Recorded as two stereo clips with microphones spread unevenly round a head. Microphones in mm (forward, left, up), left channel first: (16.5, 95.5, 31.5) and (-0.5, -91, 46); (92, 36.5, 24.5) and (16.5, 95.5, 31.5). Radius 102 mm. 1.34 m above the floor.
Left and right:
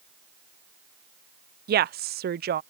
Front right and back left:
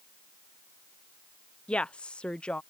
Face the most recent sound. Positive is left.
turn(degrees=-110)